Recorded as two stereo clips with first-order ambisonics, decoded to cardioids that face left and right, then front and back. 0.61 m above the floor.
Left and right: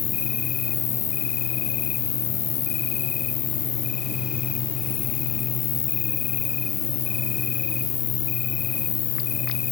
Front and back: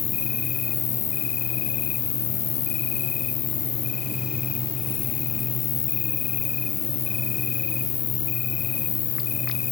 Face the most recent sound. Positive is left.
turn(degrees=45)